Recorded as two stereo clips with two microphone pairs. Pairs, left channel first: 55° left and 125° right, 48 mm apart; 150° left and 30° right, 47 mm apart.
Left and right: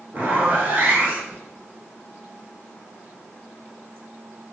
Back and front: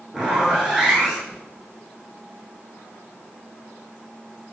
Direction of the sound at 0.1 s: 105° right.